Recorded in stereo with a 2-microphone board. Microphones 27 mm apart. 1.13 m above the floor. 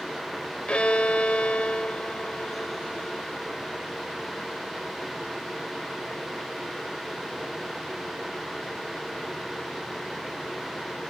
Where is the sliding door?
I don't hear a sliding door.